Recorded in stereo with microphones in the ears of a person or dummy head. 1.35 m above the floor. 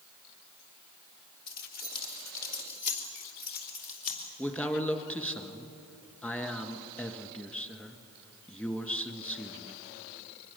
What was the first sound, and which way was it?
Keys jangling, 50° left (ahead or behind).